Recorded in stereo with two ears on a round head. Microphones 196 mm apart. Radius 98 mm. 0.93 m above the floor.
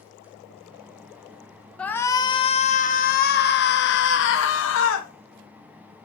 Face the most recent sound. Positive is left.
turn(degrees=65)  # may be behind; listen again after turning